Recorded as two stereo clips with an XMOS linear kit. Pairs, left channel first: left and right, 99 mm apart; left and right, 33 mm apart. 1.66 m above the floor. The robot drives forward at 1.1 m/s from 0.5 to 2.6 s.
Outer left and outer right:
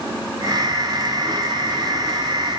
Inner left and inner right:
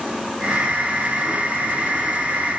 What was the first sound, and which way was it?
Only background noise.